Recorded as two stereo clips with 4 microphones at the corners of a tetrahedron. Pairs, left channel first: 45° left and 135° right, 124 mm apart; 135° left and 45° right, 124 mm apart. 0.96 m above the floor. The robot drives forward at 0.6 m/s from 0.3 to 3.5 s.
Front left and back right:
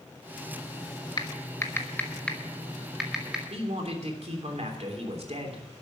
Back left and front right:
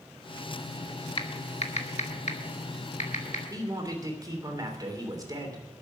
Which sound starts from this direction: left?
Typing on a keyboard, at 1.2 s.